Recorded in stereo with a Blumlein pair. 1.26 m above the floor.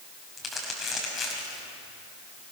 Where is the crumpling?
15° left, 6 m.